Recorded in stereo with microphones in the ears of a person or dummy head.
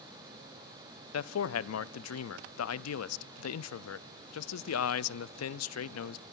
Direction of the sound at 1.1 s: 80° left.